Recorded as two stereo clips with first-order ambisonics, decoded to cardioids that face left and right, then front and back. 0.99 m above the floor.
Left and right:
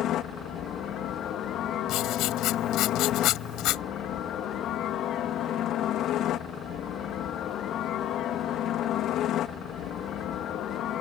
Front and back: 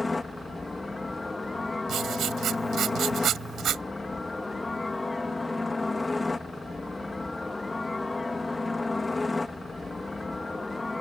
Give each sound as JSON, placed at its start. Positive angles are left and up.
{"t": 0.0, "sound": "a helicopter", "azimuth_deg": 80}
{"t": 1.9, "sound": "writing", "azimuth_deg": 125}